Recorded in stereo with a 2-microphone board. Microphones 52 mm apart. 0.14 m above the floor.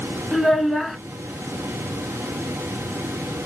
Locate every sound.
0.3 s a child speaking: centre (ahead or behind), 0.9 m